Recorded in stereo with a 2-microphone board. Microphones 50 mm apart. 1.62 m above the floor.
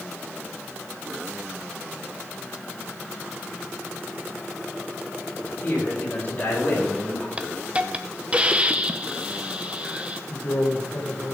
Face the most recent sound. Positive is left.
turn(degrees=85)